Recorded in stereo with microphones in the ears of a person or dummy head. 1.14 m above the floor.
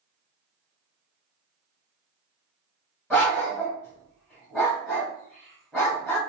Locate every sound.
3.1 s a dog barking: 10° left (ahead or behind), 1.9 m